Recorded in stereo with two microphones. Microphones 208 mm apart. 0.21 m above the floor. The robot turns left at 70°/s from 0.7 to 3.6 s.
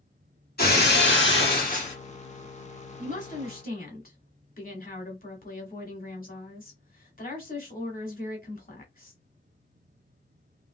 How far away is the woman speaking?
About 1.2 m.